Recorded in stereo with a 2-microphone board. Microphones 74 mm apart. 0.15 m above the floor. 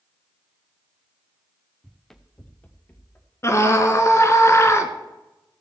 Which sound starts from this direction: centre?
Running footsteps, at 1.8 s.